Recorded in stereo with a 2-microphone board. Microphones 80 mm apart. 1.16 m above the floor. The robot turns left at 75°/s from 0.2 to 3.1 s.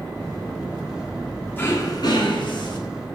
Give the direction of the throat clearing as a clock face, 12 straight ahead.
7 o'clock.